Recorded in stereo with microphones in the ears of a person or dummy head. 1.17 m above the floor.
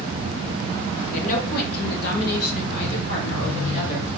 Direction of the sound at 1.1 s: 40° left (ahead or behind).